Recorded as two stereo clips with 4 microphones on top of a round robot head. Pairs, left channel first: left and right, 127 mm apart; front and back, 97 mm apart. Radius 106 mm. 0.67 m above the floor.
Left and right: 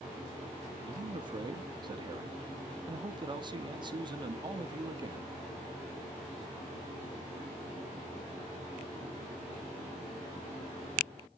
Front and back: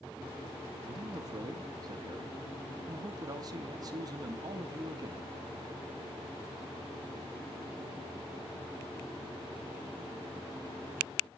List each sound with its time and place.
0.9 s a man speaking: 140° right, 1.0 m